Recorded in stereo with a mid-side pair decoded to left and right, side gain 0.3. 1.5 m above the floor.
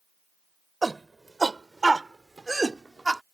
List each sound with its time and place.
0.8 s a shout: 35° right; by 3.2 s 25° right